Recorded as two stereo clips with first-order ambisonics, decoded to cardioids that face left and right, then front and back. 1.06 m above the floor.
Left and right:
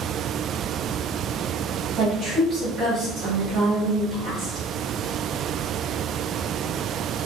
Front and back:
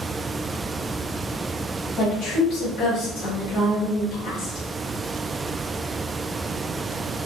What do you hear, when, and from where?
2.0 s a woman speaking: 30° right, 1.4 m